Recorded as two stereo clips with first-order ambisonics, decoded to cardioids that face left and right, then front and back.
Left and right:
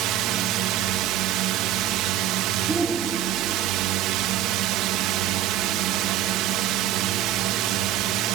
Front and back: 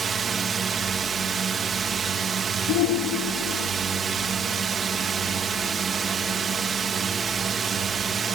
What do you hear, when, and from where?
0.0 s a drone: 115° right
2.7 s a shout: 15° right